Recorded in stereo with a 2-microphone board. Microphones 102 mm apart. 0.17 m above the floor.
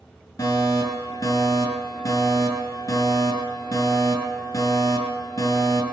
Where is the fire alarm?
40° left (ahead or behind), 7 m.